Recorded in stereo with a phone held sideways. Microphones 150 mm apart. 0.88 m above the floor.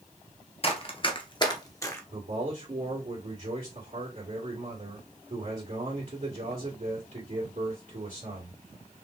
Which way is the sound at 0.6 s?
40° left (ahead or behind).